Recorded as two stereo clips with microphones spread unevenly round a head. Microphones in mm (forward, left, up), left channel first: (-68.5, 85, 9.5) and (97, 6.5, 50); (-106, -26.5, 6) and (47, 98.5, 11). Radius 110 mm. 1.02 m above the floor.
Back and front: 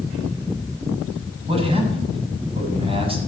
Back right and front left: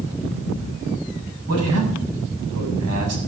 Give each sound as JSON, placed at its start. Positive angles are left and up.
{"t": 1.5, "sound": "a man speaking", "azimuth_deg": 35, "distance_m": 7.5}